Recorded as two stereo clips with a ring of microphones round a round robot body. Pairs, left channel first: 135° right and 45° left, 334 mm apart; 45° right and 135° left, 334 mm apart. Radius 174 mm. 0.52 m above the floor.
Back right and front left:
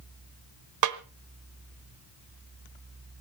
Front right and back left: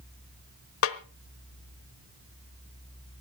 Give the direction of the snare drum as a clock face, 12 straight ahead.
12 o'clock.